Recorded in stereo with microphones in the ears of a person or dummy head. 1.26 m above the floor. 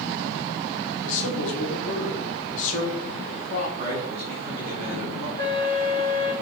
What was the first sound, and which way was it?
A man speaking, 45° left (ahead or behind).